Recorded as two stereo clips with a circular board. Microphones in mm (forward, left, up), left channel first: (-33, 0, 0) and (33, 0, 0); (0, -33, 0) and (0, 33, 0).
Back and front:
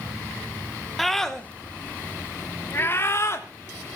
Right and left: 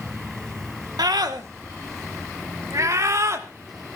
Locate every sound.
1.0 s a scream: 90° left, 2 m; by 3.5 s 135° left, 3 m